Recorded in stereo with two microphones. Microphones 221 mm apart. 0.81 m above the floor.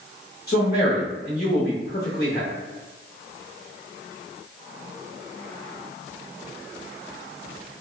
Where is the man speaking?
45° left (ahead or behind), 0.8 m.